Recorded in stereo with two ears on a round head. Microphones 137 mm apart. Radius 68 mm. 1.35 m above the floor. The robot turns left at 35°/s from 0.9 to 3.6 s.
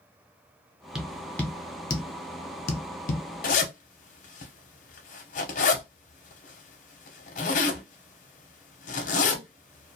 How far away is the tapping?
About 0.6 m.